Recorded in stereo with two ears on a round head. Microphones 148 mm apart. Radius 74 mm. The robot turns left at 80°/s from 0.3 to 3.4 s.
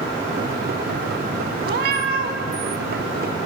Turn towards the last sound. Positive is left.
turn(degrees=145)